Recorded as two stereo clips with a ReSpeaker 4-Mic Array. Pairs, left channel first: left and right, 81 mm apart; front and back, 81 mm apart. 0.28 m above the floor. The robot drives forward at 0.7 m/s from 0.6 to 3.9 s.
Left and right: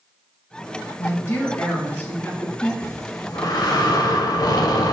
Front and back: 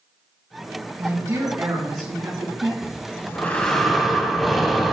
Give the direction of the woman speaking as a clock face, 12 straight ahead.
7 o'clock.